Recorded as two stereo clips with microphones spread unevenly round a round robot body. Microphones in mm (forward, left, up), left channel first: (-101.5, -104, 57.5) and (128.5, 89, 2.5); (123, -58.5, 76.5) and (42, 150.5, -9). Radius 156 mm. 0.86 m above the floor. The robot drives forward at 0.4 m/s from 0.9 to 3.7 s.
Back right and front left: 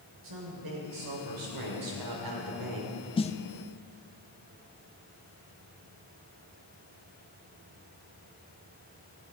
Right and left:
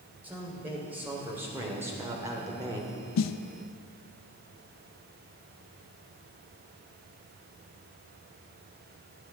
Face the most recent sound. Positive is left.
turn(degrees=-90)